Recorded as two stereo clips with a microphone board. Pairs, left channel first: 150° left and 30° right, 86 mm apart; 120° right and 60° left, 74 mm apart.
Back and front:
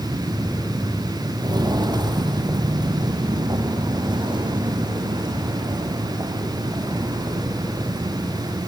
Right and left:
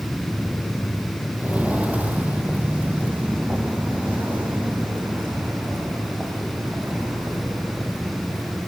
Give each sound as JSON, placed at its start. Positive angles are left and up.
{"t": 1.4, "sound": "footsteps", "azimuth_deg": -5, "distance_m": 1.9}